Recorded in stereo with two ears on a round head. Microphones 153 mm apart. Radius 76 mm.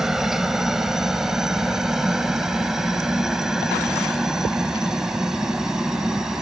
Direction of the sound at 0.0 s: Centre (ahead or behind).